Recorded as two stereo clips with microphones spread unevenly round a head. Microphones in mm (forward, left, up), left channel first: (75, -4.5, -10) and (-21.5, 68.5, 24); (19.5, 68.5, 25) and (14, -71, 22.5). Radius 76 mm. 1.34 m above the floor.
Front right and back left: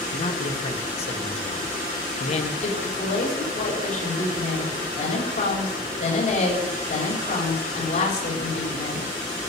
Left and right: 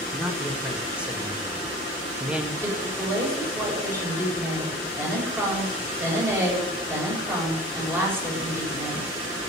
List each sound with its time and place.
0.1 s a man speaking: 10° right, 2.5 m
2.6 s a woman speaking: 20° right, 7 m